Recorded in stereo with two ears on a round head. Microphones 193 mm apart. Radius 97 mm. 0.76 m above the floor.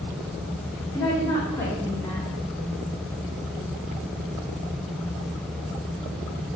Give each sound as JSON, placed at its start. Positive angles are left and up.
{"t": 0.9, "sound": "a woman speaking", "side_deg": 15, "distance_m": 2.0}